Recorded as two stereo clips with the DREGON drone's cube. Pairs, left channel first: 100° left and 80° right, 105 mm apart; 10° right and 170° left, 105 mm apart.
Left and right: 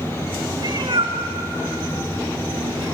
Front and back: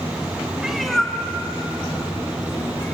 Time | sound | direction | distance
0.6 | a cat meowing | 110° right | 1.8 m